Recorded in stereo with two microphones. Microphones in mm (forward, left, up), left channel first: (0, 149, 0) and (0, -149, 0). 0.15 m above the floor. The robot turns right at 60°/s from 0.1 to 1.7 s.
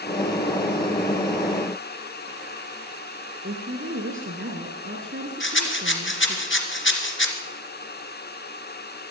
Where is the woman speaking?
40° right (ahead or behind), 2 m.